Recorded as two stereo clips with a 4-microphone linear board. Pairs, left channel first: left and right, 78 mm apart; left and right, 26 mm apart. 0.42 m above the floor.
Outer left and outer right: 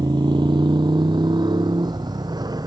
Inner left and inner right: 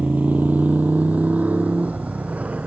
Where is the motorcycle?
70° right (ahead or behind); by 2.7 s 60° right (ahead or behind).